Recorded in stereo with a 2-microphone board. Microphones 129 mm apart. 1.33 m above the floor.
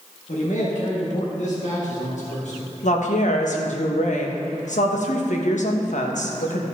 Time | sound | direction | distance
0.3 | a man speaking | 70° left (ahead or behind) | 1.7 m
2.8 | a woman speaking | 70° left (ahead or behind) | 1.2 m